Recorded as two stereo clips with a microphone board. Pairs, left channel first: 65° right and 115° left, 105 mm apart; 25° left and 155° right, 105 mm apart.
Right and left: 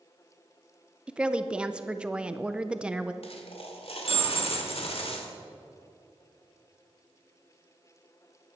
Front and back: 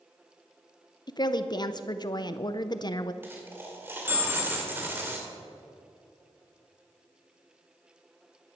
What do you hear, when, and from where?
1.1 s a woman speaking: 35° left, 0.5 m
3.2 s a dropped coin: 90° right, 1.8 m